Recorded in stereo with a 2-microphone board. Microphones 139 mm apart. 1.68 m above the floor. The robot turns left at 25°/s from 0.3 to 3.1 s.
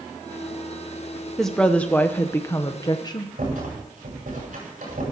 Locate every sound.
1.4 s a woman speaking: 175° left, 0.7 m; by 3.3 s 135° left, 0.7 m
3.4 s a rattle: 75° right (ahead or behind), 8 m